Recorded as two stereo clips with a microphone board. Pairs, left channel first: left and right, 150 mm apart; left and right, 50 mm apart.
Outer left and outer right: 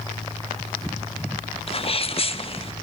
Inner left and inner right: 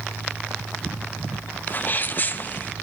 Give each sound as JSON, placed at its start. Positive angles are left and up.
{"t": 1.7, "sound": "a sneeze", "side_deg": 40, "distance_m": 1.1}